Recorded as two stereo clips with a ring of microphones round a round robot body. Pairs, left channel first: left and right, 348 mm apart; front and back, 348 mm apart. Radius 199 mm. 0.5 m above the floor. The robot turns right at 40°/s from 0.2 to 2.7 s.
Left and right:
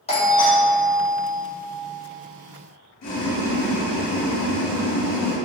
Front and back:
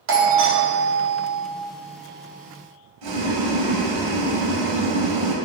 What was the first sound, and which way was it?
A doorbell, 155° left.